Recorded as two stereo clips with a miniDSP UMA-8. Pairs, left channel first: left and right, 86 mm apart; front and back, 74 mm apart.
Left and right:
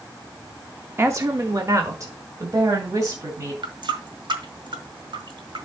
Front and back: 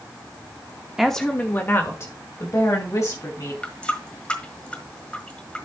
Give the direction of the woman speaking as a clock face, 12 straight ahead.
3 o'clock.